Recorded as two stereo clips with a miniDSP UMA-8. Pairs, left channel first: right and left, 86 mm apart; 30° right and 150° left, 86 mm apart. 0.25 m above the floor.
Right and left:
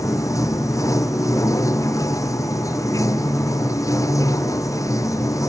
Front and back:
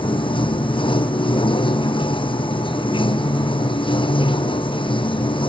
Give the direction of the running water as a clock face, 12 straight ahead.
1 o'clock.